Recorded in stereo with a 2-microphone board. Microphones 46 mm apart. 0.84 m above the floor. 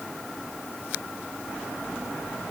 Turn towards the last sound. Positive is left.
No sound to turn to.